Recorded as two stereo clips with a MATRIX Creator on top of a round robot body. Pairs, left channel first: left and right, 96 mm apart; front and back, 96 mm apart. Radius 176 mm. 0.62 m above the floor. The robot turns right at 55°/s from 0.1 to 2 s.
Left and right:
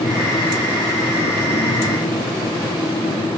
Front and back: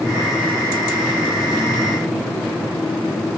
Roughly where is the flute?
No flute in this recording.